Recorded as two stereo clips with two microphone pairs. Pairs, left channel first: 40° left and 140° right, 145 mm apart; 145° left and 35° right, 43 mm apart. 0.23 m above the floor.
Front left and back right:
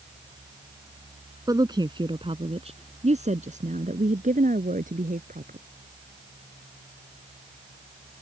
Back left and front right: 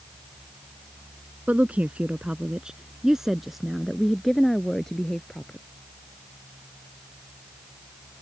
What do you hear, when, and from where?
1.5 s a woman speaking: 80° right; by 5.6 s 140° right